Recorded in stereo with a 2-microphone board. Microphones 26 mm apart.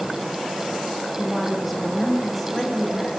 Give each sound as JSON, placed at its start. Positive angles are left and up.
{"t": 1.2, "sound": "a woman speaking", "side_deg": -5, "distance_m": 4.5}